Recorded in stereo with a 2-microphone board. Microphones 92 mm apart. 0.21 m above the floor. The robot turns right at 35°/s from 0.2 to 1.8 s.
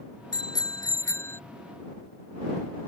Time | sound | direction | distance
0.3 | a bicycle bell | 115° left | ?